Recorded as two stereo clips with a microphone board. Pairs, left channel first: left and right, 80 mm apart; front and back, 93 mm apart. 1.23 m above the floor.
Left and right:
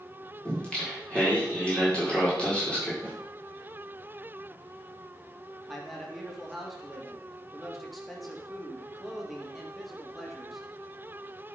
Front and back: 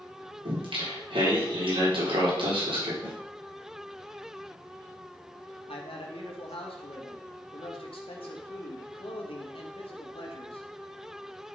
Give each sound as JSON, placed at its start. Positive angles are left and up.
{"t": 0.5, "sound": "singing", "azimuth_deg": 165, "distance_m": 4.5}
{"t": 3.0, "sound": "a snare drum", "azimuth_deg": 160, "distance_m": 5.0}
{"t": 5.7, "sound": "a man speaking", "azimuth_deg": 0, "distance_m": 2.0}